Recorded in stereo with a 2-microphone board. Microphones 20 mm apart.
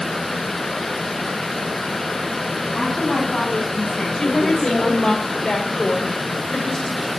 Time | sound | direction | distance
2.8 | a woman speaking | 25° left (ahead or behind) | 4.5 m
4.2 | a woman speaking | 45° left (ahead or behind) | 2.5 m